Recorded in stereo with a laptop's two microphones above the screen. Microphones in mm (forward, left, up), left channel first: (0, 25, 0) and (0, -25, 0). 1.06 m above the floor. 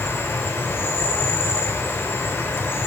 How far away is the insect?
About 3 m.